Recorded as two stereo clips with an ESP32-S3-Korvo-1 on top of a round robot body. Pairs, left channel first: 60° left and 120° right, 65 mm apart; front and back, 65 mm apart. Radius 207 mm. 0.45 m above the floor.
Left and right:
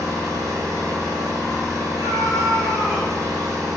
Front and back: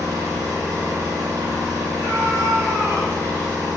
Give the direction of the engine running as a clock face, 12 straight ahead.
5 o'clock.